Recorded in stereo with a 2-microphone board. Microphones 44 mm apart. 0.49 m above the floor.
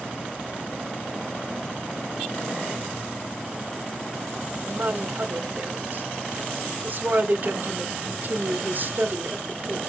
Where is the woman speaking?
50° right (ahead or behind), 1.5 m.